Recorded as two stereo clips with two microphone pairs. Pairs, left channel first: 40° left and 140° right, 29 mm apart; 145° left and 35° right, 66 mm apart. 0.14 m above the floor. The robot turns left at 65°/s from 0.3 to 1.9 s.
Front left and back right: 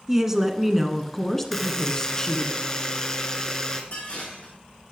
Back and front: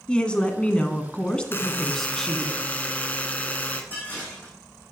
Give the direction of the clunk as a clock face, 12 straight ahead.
I don't hear a clunk.